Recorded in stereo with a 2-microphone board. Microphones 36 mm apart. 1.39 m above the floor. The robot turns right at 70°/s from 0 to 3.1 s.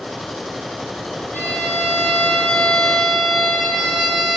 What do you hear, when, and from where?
1.3 s a violin: 65° left, 3.5 m; by 4.4 s 170° right, 3.5 m